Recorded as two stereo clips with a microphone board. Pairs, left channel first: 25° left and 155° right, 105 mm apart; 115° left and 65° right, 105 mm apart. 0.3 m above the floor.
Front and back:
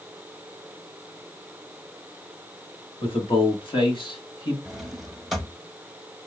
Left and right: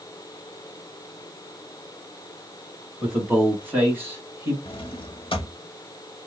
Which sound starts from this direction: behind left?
A drawer, at 4.7 s.